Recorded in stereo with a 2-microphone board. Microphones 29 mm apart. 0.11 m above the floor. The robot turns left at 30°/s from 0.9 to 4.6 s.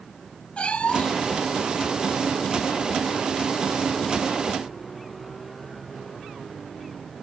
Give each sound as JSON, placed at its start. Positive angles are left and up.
{"t": 0.6, "sound": "a cat meowing", "side_deg": 40}